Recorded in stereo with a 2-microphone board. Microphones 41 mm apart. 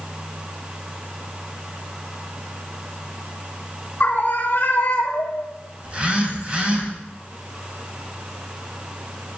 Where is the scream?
50° left (ahead or behind), 3.5 m; by 5.5 s 70° left (ahead or behind), 2.5 m.